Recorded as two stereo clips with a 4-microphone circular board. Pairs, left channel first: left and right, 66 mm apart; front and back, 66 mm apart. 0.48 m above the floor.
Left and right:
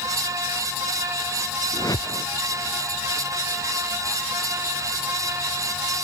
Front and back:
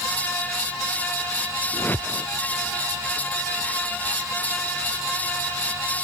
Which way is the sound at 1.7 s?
60° left.